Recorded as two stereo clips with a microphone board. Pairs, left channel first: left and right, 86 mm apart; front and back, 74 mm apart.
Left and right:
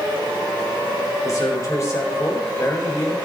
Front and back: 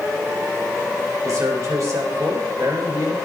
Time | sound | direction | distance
1.2 | a man speaking | 140° left | 3.5 m